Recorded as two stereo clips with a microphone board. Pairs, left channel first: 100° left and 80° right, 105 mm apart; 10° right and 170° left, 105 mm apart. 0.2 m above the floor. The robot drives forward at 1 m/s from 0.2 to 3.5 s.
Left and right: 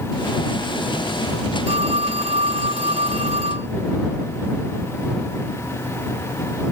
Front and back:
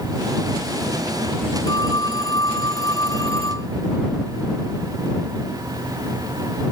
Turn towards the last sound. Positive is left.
turn(degrees=-70)